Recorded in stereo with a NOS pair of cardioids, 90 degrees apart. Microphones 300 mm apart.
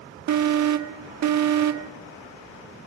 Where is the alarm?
65° right, 1.7 m.